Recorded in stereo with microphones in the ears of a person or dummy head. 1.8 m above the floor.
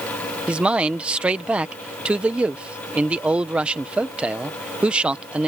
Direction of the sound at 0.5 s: 10° right (ahead or behind).